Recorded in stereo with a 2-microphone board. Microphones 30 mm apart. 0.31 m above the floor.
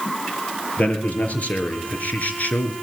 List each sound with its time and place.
0.8 s a man speaking: 50° left (ahead or behind), 5 m; by 2.7 s 65° left (ahead or behind), 3.5 m